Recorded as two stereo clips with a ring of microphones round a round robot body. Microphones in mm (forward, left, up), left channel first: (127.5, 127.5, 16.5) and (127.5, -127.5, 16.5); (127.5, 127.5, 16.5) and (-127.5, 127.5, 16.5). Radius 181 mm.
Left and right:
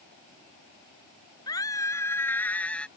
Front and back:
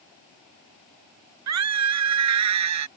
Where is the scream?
170° left; by 2.9 s straight behind.